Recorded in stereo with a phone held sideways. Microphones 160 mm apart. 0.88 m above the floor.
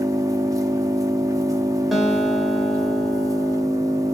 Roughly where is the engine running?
Right.